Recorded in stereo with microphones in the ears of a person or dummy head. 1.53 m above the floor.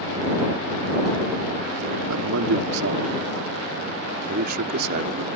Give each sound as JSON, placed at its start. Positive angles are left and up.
{"t": 2.1, "sound": "a man speaking", "side_deg": -70}